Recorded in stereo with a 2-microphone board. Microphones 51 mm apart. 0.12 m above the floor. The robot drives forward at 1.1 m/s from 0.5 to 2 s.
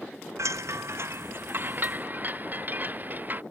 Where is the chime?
75° right (ahead or behind); by 3.4 s 35° right (ahead or behind).